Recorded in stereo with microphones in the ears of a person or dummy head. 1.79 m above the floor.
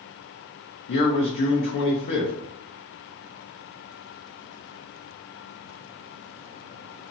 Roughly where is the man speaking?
Left.